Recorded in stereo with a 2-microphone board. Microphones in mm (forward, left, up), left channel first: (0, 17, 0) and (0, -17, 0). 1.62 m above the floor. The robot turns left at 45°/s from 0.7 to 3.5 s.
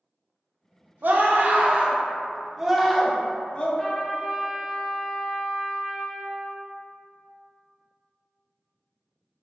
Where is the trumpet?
10° left (ahead or behind), 0.6 m.